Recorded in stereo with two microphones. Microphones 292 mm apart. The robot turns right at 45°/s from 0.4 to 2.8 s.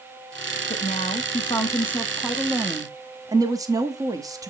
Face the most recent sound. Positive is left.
turn(degrees=-10)  # may be behind; listen again after turning